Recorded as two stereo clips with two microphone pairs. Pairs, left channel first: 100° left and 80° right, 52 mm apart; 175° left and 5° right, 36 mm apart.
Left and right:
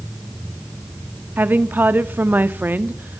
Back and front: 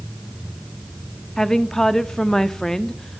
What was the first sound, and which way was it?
A woman speaking, 110° right.